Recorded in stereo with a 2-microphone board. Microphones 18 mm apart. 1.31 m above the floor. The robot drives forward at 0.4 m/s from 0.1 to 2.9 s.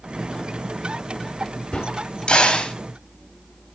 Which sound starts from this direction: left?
A crack, at 1.7 s.